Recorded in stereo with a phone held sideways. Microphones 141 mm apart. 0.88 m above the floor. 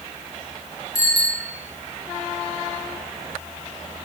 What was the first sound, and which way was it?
A bicycle bell, 25° left (ahead or behind).